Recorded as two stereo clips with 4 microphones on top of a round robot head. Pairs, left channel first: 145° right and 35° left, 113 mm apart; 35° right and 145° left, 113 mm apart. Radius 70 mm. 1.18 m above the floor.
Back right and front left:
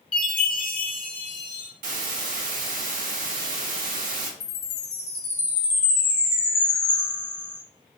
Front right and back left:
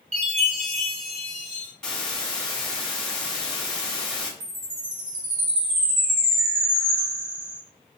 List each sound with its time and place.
0.1 s a chime: 170° left, 1.5 m
1.8 s a hiss: 50° left, 0.8 m
4.4 s a chime: 155° left, 2 m